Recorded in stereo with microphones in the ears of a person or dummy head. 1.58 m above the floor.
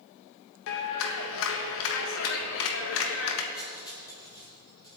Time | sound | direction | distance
0.7 | a clap | 75° left (ahead or behind) | 1.5 m
3.5 | cutlery clinking | 25° left (ahead or behind) | 4.5 m